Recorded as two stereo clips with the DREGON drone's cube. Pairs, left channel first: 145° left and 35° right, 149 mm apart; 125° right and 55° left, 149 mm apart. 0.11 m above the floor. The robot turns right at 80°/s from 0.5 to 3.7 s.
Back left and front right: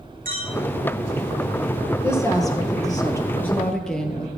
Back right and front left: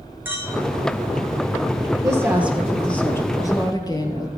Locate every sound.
0.2 s a clink: 20° right, 3 m
2.0 s a woman speaking: 95° left, 1.8 m; by 4.3 s 135° right, 1.8 m